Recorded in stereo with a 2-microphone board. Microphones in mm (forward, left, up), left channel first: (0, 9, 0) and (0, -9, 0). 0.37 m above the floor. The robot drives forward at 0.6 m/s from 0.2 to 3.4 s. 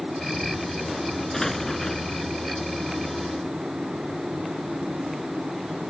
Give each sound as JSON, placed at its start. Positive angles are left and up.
{"t": 1.3, "sound": "an explosion", "side_deg": 20}